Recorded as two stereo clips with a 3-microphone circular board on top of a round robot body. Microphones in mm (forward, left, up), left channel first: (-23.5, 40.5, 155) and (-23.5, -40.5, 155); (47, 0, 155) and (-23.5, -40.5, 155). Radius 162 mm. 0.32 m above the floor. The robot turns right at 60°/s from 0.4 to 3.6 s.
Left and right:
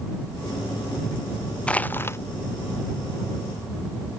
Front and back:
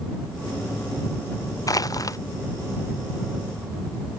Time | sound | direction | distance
1.7 | crushing | 20° left | ?